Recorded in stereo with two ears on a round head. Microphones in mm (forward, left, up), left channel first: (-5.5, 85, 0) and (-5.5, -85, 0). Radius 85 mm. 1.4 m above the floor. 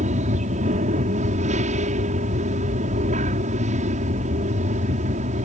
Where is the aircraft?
40° right (ahead or behind).